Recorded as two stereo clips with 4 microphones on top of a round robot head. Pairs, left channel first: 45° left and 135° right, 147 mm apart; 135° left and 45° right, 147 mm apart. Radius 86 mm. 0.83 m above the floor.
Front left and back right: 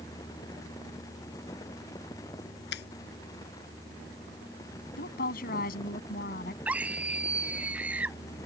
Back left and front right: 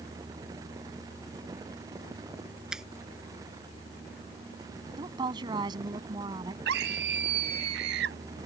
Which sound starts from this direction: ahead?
A woman speaking, at 5.0 s.